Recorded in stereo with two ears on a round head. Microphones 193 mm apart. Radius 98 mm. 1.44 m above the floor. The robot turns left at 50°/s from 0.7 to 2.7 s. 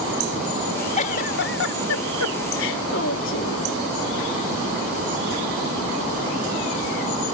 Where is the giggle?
145° left; by 3.6 s 60° left.